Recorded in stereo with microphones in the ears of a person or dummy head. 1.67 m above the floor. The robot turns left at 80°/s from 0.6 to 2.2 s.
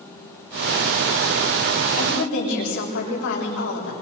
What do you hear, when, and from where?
2.0 s a woman speaking: 50° left (ahead or behind), 6.5 m; by 3.9 s 65° left (ahead or behind), 6.5 m